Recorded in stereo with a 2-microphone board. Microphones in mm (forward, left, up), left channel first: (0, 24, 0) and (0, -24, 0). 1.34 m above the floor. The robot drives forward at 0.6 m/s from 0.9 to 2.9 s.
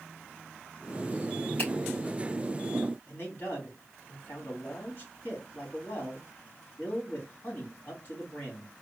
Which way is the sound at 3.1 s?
40° left (ahead or behind).